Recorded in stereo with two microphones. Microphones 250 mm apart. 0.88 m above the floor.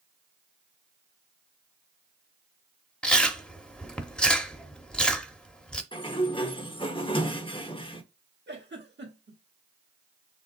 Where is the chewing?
5° left (ahead or behind), 0.7 m.